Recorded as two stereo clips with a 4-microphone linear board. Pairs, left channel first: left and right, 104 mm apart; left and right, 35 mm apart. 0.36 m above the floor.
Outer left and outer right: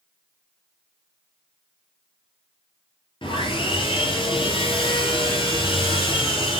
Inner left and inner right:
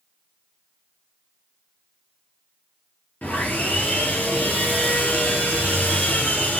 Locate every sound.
3.2 s sawing: 55° left (ahead or behind), 4.5 m